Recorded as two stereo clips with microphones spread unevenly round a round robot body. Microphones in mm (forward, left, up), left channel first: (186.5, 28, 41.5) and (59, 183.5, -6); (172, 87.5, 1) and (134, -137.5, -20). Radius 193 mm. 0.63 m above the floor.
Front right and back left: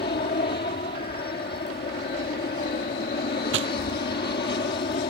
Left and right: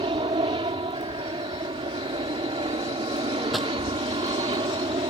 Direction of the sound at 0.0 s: 50° right.